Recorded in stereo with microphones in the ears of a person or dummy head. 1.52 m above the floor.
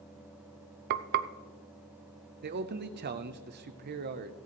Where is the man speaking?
50° right (ahead or behind), 0.7 m.